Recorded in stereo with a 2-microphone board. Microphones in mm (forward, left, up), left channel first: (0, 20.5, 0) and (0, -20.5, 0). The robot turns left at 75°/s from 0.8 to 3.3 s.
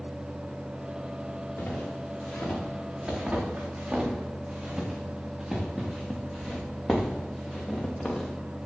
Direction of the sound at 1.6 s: 85° left.